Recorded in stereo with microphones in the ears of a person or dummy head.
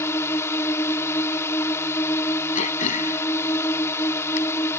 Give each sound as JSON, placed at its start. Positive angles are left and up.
{"t": 0.0, "sound": "a drone", "side_deg": 20}
{"t": 2.5, "sound": "throat clearing", "side_deg": 50}